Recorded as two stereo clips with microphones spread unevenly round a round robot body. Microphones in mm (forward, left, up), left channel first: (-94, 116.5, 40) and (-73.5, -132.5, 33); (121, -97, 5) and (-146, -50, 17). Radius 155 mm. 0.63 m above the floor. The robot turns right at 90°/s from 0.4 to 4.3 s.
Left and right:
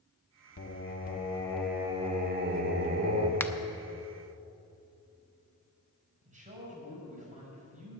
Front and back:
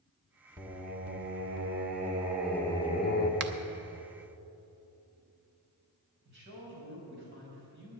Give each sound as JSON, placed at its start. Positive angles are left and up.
{"t": 0.6, "sound": "singing", "azimuth_deg": 90, "distance_m": 1.2}
{"t": 3.4, "sound": "a finger snap", "azimuth_deg": 175, "distance_m": 0.6}
{"t": 6.2, "sound": "a man speaking", "azimuth_deg": -145, "distance_m": 5.0}